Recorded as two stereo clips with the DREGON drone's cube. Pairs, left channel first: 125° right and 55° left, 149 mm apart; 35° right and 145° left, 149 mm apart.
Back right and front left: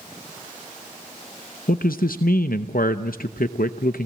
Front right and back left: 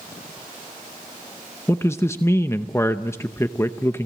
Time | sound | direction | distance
1.7 | a man speaking | 105° right | 0.7 m